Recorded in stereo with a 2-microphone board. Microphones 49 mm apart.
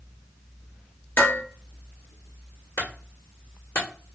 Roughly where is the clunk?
Left.